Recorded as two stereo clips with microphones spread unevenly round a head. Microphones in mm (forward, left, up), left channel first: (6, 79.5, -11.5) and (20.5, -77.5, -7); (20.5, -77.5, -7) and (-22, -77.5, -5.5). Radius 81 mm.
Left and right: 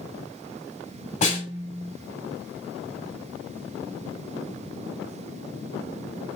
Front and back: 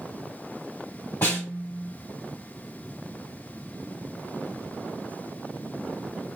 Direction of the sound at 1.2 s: 60° left.